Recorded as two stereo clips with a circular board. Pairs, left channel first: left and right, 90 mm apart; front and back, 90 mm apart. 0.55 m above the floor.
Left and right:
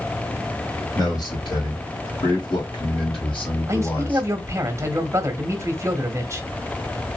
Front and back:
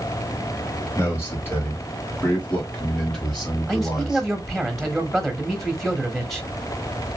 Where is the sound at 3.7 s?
90° right, 1.2 m.